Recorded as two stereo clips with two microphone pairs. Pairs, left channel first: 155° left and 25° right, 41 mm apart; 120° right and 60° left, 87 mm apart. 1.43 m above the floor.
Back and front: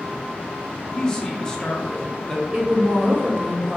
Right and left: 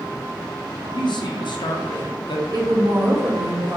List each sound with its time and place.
0.9 s a man speaking: 130° right, 0.7 m
2.5 s a woman speaking: 25° left, 1.0 m